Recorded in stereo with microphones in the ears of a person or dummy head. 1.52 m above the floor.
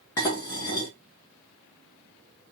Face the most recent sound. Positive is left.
turn(degrees=20)  # may be behind; listen again after turning